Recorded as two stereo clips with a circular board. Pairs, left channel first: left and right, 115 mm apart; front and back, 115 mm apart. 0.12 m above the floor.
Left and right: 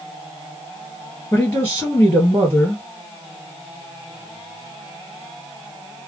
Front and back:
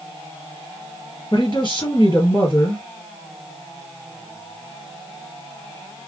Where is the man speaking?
20° left, 2.5 m.